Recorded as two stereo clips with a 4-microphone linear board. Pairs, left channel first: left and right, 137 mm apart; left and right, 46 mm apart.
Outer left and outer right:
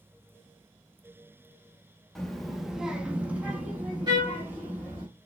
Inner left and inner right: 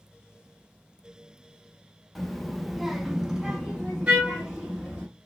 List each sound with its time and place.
2.1 s a child speaking: centre (ahead or behind), 0.7 m; by 5.1 s 10° right (ahead or behind), 1.3 m
4.1 s a trumpet: 30° right (ahead or behind), 1.2 m